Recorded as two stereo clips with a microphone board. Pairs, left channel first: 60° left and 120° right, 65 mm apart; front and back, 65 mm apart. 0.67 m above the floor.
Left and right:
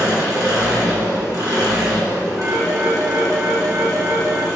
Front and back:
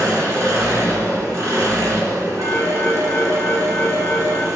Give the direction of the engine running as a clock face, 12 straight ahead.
5 o'clock.